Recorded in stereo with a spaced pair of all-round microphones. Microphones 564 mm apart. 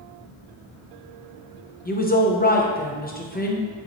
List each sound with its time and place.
1.9 s a woman speaking: 15° left (ahead or behind), 0.5 m